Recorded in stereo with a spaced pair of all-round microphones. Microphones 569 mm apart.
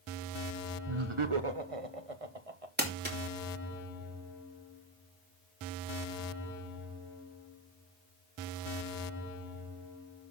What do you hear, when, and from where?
0.9 s laughter: 50° right (ahead or behind), 1.1 m; by 2.7 s 75° right (ahead or behind), 2 m
2.8 s crumpling: 15° right (ahead or behind), 3 m